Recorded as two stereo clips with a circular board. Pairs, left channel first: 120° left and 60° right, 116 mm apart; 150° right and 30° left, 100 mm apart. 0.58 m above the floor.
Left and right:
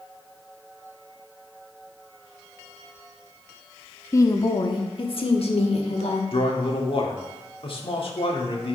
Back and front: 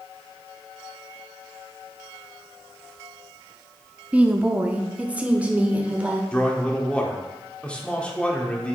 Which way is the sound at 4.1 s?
90° left.